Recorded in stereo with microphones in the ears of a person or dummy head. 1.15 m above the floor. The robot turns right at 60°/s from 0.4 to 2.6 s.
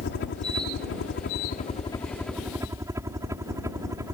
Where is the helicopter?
65° left; by 4.2 s 165° right.